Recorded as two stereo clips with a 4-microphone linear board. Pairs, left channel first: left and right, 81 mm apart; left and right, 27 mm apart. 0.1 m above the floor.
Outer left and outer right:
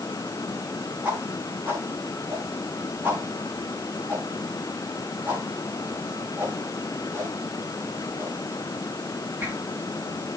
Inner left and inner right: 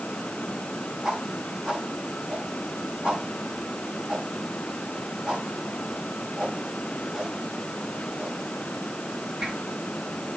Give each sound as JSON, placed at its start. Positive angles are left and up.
{"t": 1.0, "sound": "a whoosh", "side_deg": -25, "distance_m": 9.5}